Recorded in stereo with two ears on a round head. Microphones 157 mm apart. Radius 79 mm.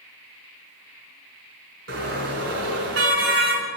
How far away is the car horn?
About 5 m.